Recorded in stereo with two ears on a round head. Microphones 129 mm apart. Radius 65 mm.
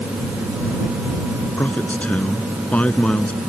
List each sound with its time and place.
1.6 s a man speaking: 10° left (ahead or behind); by 3.4 s 5° left (ahead or behind)